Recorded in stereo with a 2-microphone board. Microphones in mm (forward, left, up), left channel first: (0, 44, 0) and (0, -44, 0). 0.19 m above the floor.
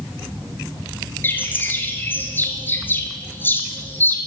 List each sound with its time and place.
1.2 s a bird: 25° left (ahead or behind), 1.1 m